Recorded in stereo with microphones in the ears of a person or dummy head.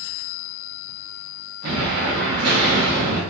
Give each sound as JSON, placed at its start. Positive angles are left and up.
{"t": 1.6, "sound": "an explosion", "side_deg": -55, "distance_m": 0.8}